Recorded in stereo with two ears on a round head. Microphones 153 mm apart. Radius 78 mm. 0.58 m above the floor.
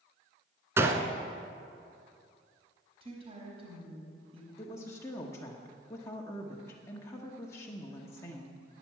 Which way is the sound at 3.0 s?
35° right (ahead or behind).